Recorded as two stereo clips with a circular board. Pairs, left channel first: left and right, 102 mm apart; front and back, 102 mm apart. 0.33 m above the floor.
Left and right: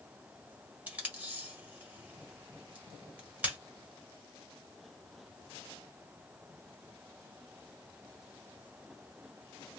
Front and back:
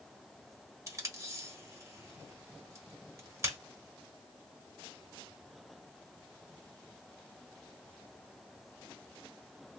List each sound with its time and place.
0.9 s tape being pulled: 155° right, 1.2 m